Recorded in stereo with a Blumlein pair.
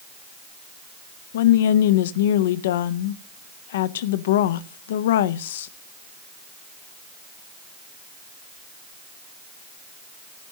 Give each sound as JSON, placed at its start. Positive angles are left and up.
{"t": 1.3, "sound": "a woman speaking", "azimuth_deg": 55, "distance_m": 0.7}